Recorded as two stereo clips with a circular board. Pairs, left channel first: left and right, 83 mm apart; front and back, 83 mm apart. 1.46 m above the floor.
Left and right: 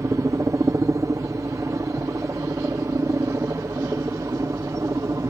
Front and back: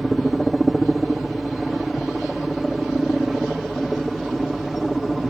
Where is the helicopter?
90° right.